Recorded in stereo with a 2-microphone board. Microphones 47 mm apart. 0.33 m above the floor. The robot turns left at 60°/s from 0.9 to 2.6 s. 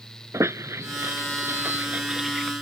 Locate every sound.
0.3 s a squeak: 80° right; by 2.5 s centre (ahead or behind)